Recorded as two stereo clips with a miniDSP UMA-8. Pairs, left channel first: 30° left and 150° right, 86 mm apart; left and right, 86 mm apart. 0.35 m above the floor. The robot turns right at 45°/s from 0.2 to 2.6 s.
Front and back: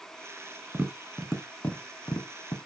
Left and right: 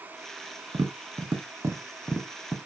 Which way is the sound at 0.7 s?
80° right.